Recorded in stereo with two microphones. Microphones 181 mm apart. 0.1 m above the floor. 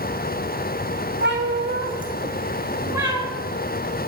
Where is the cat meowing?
80° right, 1.1 m; by 3.3 s 10° right (ahead or behind), 1.9 m.